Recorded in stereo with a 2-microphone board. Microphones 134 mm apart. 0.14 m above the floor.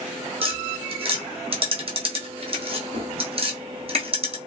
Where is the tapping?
45° right (ahead or behind), 0.9 m.